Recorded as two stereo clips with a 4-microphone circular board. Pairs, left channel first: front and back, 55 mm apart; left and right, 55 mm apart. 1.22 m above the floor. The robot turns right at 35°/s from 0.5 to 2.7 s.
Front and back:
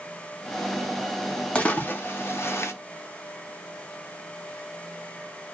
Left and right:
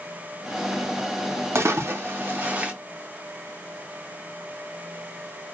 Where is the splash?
65° right, 0.7 m; by 2.7 s 25° right, 0.7 m.